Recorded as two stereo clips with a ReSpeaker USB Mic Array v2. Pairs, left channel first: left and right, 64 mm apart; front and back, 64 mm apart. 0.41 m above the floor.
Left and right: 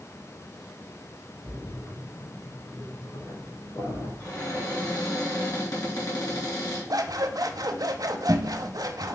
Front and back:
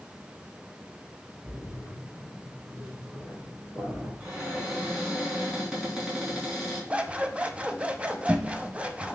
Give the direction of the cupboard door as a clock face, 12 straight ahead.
9 o'clock.